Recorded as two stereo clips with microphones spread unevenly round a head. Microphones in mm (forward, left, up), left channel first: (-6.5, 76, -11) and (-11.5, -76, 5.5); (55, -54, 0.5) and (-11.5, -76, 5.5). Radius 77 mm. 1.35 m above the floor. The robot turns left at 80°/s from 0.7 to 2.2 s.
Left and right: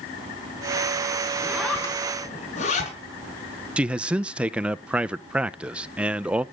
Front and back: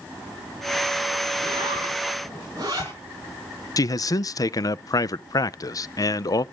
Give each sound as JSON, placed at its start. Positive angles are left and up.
{"t": 1.4, "sound": "a zipper", "azimuth_deg": -160, "distance_m": 4.5}
{"t": 3.8, "sound": "a man speaking", "azimuth_deg": -10, "distance_m": 0.6}